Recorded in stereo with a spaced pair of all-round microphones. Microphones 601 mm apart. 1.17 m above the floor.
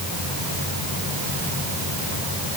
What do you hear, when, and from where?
Only background noise.